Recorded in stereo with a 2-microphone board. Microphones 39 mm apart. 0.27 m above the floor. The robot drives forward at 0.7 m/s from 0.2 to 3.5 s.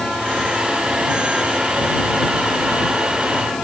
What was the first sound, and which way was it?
Only background noise.